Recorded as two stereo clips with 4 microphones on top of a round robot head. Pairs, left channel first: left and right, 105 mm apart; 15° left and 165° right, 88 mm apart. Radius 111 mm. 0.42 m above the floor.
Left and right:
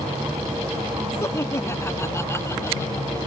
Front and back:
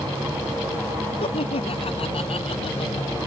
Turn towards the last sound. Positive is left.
turn(degrees=25)